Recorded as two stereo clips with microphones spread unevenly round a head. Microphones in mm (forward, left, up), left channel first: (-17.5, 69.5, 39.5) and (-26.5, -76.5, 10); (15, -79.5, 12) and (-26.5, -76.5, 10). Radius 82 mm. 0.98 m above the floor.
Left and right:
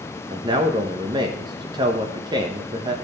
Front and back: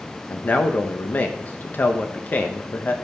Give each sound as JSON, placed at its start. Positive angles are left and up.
{"t": 0.3, "sound": "a man speaking", "azimuth_deg": -45, "distance_m": 1.0}